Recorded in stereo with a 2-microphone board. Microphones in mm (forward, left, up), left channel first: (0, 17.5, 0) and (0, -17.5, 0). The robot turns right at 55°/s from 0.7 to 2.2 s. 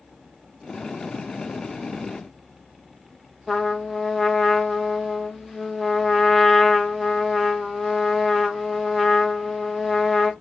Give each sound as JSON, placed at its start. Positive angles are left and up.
{"t": 3.5, "sound": "a trumpet", "side_deg": 0, "distance_m": 0.6}